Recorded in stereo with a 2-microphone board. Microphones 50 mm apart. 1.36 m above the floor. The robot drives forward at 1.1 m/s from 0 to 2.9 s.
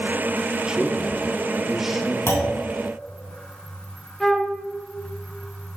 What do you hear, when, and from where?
0.7 s a man speaking: 15° right (ahead or behind), 0.6 m; by 2.2 s 5° right (ahead or behind), 2 m
2.3 s a clunk: 70° left (ahead or behind), 3 m; by 2.6 s 60° left (ahead or behind), 3 m
4.2 s a flute: 10° left (ahead or behind), 1.4 m